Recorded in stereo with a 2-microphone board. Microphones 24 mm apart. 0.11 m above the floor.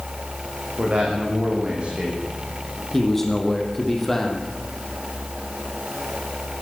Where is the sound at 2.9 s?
10° left (ahead or behind), 4.5 m.